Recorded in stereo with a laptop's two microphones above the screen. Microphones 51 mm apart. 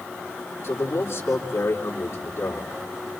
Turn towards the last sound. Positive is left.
turn(degrees=70)  # may be behind; listen again after turning